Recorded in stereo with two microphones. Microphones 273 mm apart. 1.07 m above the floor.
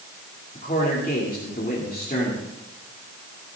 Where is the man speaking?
30° left (ahead or behind), 2.5 m.